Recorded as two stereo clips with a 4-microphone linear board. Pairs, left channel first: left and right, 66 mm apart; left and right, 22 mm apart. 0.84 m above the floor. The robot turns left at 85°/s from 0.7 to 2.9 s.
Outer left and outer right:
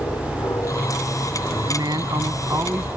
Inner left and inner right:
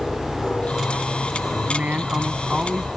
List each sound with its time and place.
0.0 s an aircraft: 55° left (ahead or behind); by 3.0 s 50° right (ahead or behind)
1.7 s a man speaking: 65° right; by 2.9 s 170° right